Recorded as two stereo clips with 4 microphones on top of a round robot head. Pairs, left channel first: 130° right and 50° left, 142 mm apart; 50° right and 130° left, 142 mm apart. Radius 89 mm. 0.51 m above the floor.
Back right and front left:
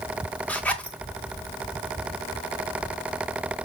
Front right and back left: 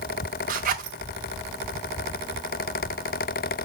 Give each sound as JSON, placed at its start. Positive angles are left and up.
{"t": 0.5, "sound": "a zipper", "azimuth_deg": 150, "distance_m": 1.1}